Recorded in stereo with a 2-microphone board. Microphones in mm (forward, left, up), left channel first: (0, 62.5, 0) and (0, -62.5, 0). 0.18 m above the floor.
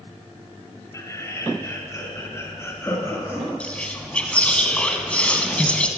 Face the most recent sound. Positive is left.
turn(degrees=10)  # may be behind; listen again after turning